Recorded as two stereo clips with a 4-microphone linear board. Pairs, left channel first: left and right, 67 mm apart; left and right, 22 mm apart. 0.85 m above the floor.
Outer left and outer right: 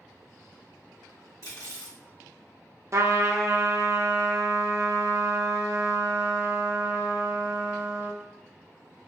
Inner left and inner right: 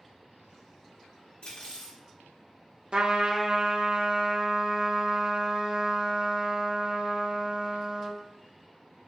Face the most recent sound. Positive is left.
turn(degrees=-50)  # may be behind; listen again after turning